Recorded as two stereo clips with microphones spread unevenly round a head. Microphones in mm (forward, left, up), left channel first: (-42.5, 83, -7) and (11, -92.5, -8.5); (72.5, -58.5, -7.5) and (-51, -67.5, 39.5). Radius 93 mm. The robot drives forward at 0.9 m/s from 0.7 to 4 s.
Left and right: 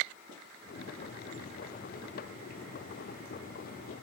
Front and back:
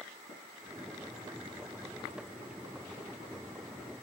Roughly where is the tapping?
Ahead left.